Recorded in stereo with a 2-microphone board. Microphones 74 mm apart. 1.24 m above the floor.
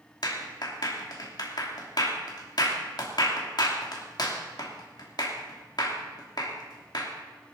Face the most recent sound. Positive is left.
turn(degrees=65)  # may be behind; listen again after turning